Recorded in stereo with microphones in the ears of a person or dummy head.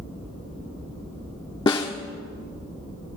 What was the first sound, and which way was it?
A snare drum, 20° left (ahead or behind).